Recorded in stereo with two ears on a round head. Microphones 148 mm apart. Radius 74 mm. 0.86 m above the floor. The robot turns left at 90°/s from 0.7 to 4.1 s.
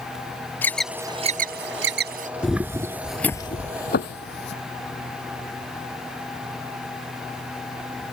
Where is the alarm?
10° left (ahead or behind); by 2.3 s 50° right (ahead or behind).